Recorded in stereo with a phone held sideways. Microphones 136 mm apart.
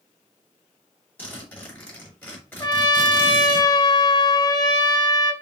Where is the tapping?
I don't hear tapping.